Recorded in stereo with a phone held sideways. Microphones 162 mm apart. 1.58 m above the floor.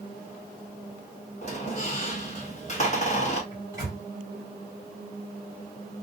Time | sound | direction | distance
1.4 | a squeak | 45° left (ahead or behind) | 1.2 m
3.5 | a microwave | 20° right (ahead or behind) | 1.8 m